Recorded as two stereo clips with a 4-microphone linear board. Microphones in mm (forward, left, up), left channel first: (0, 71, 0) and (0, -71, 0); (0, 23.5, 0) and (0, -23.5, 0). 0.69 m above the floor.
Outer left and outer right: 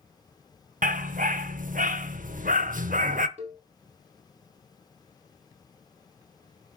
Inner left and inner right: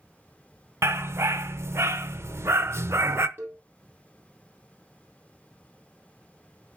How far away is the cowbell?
About 3.5 m.